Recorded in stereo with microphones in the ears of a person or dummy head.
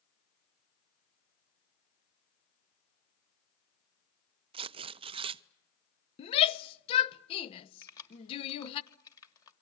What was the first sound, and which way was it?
Tearing paper, 30° right (ahead or behind).